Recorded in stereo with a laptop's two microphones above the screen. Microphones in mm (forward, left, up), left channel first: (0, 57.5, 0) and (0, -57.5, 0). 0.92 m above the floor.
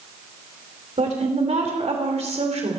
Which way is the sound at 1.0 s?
70° right (ahead or behind).